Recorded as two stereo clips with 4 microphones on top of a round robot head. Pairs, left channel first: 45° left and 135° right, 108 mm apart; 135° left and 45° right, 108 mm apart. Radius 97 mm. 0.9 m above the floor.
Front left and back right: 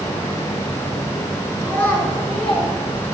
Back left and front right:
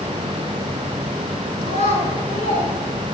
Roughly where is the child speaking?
Behind left.